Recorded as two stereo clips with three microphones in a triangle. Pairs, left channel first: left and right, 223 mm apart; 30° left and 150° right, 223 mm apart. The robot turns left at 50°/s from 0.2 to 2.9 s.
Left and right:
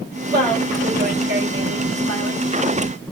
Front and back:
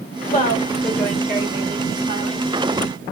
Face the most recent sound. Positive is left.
turn(degrees=-145)